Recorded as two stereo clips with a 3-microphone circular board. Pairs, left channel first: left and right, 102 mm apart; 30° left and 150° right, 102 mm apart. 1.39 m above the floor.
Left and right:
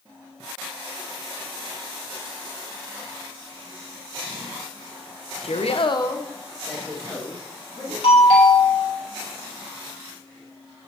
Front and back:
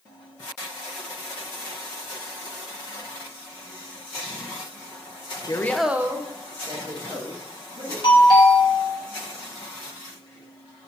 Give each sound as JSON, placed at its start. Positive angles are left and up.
{"t": 5.4, "sound": "a woman speaking", "azimuth_deg": 75, "distance_m": 0.7}
{"t": 8.0, "sound": "a doorbell", "azimuth_deg": 65, "distance_m": 2.5}